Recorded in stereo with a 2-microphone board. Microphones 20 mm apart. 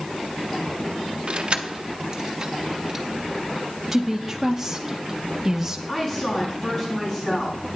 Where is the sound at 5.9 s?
30° left (ahead or behind), 5 m.